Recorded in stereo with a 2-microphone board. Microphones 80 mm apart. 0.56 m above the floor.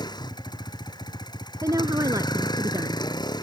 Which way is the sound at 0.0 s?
70° left (ahead or behind).